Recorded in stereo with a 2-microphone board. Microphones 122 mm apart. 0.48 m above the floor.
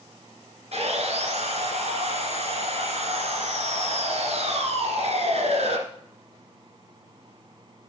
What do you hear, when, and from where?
0.7 s sawing: 60° right (ahead or behind), 1.9 m